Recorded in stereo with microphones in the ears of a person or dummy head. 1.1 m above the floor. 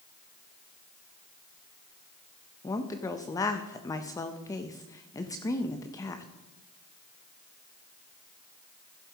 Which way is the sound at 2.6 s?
20° left (ahead or behind).